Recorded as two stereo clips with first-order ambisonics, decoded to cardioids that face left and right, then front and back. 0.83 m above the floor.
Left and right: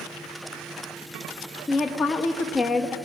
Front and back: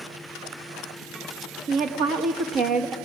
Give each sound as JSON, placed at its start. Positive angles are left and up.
{"t": 1.7, "sound": "a woman speaking", "azimuth_deg": 155, "distance_m": 1.0}